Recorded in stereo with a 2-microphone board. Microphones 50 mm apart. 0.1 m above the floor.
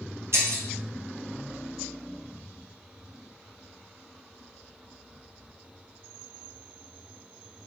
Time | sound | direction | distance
0.3 | breaking glass | 60° right (ahead or behind) | 1.5 m